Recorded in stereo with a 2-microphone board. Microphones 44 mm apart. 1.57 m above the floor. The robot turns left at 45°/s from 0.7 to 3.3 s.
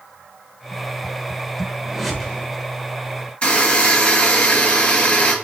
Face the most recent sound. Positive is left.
turn(degrees=25)  # may be behind; listen again after turning